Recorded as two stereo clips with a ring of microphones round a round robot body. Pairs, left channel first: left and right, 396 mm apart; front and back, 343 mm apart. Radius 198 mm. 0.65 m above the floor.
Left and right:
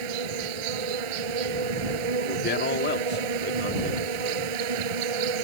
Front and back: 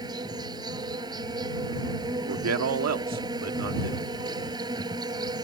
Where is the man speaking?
150° left.